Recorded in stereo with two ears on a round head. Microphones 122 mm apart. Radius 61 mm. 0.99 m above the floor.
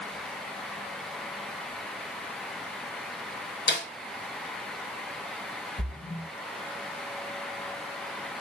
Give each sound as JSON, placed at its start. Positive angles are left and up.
{"t": 3.7, "sound": "a snare drum", "side_deg": 80, "distance_m": 2.5}
{"t": 5.8, "sound": "a splash", "side_deg": 70, "distance_m": 3.0}